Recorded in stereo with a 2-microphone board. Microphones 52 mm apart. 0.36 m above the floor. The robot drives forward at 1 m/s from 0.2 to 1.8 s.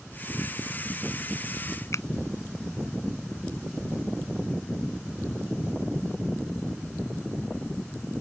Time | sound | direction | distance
1.9 | a finger snap | 65° left (ahead or behind) | ?